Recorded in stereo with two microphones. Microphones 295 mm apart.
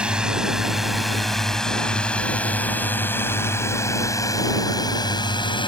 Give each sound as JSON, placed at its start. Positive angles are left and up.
{"t": 0.0, "sound": "a drone", "side_deg": -5}